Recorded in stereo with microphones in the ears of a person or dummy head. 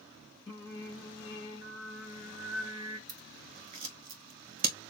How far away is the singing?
About 2.5 m.